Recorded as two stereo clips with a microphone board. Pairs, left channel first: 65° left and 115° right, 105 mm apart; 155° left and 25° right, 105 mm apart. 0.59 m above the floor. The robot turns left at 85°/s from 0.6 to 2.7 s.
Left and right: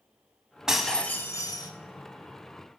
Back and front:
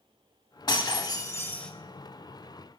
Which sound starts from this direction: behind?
Breaking glass, at 0.7 s.